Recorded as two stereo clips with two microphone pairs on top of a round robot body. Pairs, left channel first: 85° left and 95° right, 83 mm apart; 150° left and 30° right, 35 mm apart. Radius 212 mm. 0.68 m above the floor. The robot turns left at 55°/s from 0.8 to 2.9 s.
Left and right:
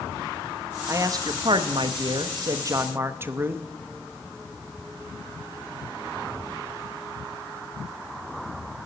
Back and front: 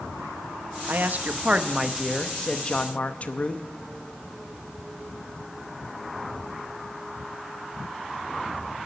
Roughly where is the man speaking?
Ahead right.